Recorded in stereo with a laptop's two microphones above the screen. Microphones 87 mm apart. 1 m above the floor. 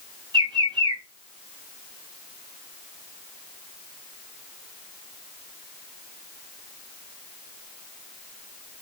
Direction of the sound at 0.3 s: 60° right (ahead or behind).